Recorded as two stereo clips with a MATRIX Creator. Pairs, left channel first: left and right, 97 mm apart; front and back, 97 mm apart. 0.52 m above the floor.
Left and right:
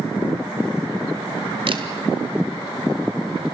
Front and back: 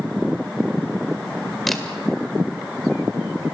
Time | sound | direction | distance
1.7 | a camera shutter | 90° right | 1.9 m